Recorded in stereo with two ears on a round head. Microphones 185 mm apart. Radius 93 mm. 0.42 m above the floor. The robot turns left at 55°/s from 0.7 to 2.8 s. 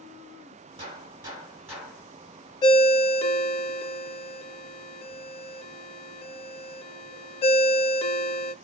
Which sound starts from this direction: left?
A ringtone, at 2.6 s.